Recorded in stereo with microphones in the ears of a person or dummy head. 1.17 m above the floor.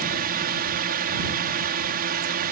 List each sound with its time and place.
0.0 s a drone: 45° right (ahead or behind)